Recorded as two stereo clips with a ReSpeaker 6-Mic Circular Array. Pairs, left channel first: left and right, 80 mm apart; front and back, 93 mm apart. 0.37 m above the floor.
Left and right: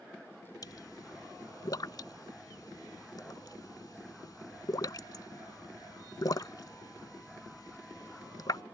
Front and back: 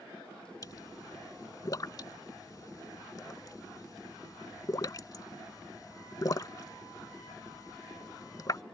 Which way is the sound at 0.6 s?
50° left.